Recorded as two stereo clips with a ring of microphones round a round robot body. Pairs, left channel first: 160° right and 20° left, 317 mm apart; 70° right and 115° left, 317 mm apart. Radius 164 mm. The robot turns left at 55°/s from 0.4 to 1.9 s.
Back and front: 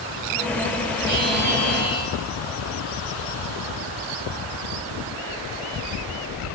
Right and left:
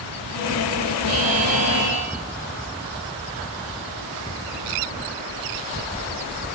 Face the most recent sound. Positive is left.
turn(degrees=30)